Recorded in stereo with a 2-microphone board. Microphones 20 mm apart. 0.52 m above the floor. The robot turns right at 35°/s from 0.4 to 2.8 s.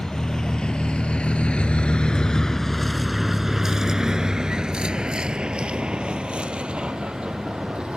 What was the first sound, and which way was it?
A vehicle, 40° left (ahead or behind).